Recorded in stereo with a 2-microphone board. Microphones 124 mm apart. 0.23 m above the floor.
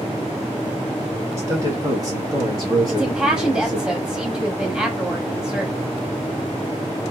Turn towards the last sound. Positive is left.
turn(degrees=-5)  # may be behind; listen again after turning